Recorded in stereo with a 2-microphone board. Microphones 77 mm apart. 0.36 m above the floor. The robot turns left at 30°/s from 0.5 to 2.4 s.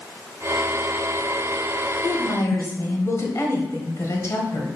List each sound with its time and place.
2.0 s a woman speaking: 50° left (ahead or behind), 1.4 m; by 4.7 s 40° left (ahead or behind), 1.4 m